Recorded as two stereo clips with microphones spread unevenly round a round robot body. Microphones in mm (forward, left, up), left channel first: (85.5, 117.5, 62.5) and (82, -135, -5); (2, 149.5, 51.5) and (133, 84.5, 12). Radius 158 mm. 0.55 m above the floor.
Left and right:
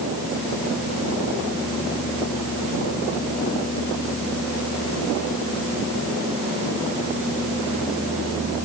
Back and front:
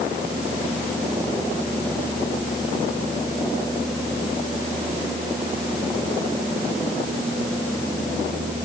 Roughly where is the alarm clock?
No alarm clock in this recording.